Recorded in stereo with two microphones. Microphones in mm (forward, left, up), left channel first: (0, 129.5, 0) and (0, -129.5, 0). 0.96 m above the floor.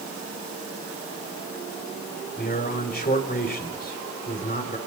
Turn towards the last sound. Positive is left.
turn(degrees=35)  # may be behind; listen again after turning